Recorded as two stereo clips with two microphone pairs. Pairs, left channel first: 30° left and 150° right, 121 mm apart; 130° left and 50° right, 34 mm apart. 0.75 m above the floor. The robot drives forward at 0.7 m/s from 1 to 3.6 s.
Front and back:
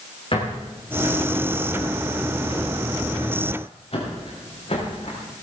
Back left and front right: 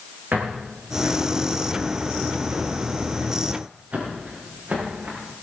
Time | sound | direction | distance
0.3 | footsteps | 15° right | 7.5 m